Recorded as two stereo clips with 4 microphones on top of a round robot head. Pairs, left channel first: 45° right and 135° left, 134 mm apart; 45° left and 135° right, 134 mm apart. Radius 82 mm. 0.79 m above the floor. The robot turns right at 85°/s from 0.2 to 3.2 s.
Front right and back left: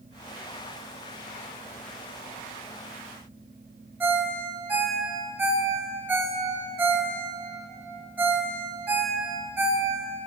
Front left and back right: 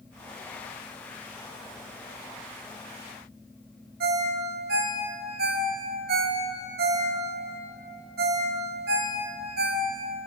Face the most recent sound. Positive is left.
turn(degrees=-145)